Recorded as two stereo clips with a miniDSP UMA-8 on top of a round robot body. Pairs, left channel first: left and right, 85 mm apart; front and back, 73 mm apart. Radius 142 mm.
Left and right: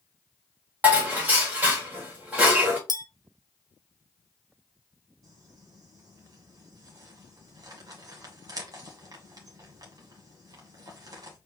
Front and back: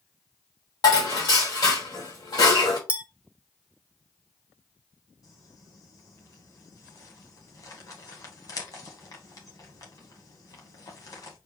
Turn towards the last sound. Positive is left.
turn(degrees=-40)